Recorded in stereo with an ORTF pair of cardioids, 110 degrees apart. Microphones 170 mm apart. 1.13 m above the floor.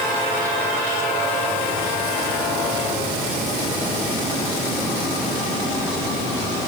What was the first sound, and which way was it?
Only background noise.